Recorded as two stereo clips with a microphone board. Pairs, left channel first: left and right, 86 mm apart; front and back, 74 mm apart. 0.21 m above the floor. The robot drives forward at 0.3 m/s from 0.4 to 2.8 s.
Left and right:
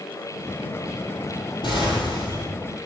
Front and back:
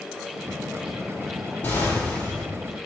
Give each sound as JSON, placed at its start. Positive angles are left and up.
{"t": 1.6, "sound": "an explosion", "azimuth_deg": 65, "distance_m": 1.3}